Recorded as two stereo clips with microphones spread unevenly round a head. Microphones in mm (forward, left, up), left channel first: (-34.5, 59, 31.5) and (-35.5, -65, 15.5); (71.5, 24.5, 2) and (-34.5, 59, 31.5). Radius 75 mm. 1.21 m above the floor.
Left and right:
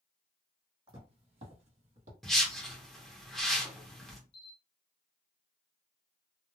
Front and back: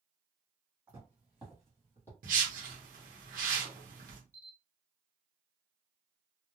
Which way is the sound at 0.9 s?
140° right.